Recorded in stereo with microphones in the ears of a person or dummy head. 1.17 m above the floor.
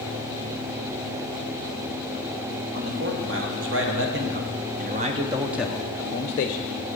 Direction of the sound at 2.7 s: 65° right (ahead or behind).